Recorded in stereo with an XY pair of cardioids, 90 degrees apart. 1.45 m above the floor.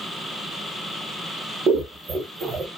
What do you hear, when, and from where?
1.7 s scissors: 60° right, 0.8 m